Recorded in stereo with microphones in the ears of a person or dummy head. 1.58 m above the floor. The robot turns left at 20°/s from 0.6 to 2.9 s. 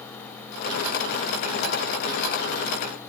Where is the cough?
I don't hear a cough.